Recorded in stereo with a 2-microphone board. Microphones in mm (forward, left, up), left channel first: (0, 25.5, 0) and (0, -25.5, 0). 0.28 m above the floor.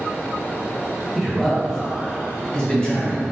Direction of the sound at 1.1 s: 5° left (ahead or behind).